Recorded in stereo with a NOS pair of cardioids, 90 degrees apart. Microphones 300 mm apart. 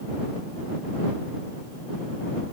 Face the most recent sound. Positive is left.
No sound to turn to.